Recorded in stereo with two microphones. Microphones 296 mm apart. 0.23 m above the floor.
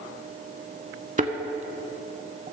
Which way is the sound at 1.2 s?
25° right (ahead or behind).